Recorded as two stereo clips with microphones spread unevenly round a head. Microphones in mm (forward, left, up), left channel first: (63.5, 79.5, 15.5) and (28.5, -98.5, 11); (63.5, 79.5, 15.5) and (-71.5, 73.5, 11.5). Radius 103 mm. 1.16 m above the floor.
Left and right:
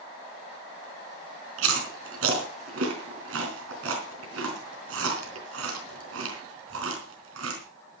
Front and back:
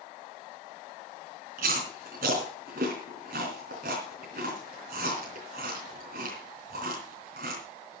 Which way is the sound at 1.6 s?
125° right.